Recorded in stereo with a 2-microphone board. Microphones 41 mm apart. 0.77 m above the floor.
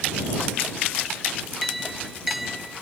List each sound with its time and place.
1.6 s a clink: 5° right (ahead or behind)